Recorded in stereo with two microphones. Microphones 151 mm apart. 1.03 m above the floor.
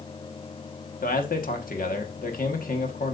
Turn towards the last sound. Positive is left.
turn(degrees=70)  # may be behind; listen again after turning